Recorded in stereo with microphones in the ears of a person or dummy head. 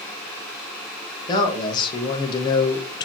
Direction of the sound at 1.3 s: 25° left (ahead or behind).